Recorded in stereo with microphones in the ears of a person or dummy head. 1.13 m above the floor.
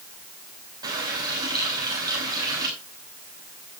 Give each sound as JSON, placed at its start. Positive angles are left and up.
{"t": 0.8, "sound": "a running tap", "side_deg": -30, "distance_m": 5.5}